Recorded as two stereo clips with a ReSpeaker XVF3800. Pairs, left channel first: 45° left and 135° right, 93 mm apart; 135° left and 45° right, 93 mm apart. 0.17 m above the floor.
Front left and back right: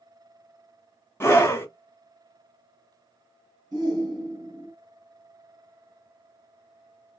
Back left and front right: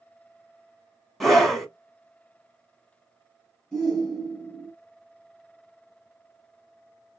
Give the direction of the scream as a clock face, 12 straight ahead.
10 o'clock.